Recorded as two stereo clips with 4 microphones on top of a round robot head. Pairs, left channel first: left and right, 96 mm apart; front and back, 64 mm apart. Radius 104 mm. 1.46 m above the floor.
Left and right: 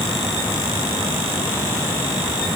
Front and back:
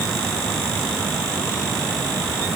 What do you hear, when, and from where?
Only background noise.